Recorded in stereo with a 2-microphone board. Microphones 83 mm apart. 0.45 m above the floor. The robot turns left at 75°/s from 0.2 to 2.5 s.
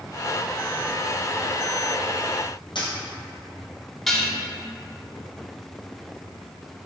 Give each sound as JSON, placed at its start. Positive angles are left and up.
{"t": 2.8, "sound": "a dropped coin", "side_deg": 70, "distance_m": 1.2}
{"t": 4.1, "sound": "dishes clattering", "side_deg": 0, "distance_m": 0.9}